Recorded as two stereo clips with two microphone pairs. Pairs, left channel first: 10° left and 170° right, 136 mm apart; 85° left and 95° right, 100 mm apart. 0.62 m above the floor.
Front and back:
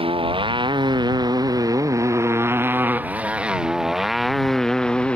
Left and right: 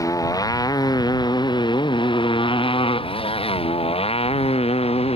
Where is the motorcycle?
140° left; by 5.2 s 90° left.